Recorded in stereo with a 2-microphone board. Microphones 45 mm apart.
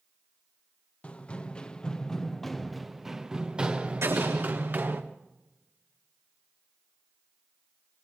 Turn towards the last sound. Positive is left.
turn(degrees=-80)